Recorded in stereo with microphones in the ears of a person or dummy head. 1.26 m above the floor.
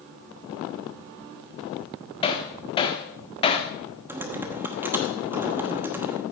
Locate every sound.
2.2 s hammering: 25° left (ahead or behind), 1.1 m
4.1 s typing on a keyboard: 10° right (ahead or behind), 1.0 m